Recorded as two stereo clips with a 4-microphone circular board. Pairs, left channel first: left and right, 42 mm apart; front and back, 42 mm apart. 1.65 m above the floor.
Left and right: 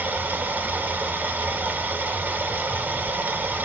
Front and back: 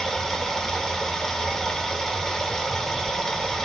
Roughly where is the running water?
Right.